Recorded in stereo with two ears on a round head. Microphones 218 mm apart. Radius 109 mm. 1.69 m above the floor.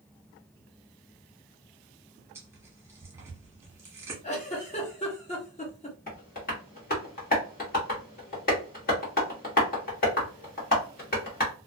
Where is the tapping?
35° left (ahead or behind), 1.3 m.